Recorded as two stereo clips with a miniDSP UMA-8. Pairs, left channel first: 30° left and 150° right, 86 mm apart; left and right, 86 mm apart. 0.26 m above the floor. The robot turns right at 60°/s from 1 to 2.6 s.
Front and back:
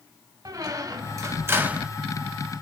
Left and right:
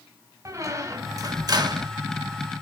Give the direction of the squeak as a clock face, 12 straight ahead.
4 o'clock.